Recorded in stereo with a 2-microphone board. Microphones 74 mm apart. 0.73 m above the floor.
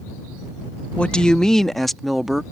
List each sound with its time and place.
1.0 s a woman speaking: 15° left (ahead or behind); by 2.4 s 5° right (ahead or behind)